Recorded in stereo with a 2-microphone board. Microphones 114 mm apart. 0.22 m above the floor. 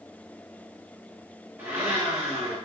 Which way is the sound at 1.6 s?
20° right (ahead or behind).